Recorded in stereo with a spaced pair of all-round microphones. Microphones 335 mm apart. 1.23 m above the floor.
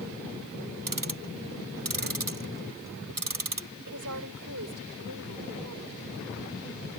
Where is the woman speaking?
60° right (ahead or behind).